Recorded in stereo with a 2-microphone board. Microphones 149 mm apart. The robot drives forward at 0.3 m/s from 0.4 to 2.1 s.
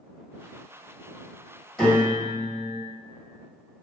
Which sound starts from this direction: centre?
A piano, at 1.8 s.